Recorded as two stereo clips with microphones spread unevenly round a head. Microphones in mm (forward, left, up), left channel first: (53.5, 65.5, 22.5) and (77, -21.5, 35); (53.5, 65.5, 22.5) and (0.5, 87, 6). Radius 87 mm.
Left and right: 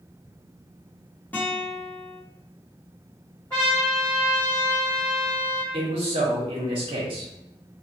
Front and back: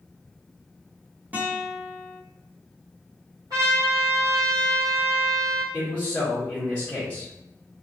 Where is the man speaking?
105° right, 0.8 m.